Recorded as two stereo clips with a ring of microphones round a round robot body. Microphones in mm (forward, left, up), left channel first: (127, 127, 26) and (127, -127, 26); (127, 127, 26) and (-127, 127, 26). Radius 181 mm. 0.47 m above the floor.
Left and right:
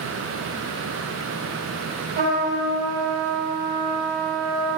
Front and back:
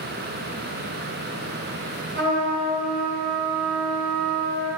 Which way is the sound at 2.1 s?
135° right.